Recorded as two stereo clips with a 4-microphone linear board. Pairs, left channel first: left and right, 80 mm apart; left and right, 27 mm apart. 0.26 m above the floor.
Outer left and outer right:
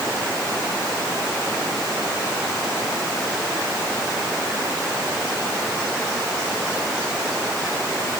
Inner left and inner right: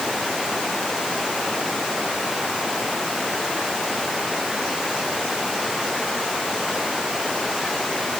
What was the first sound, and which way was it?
Only background noise.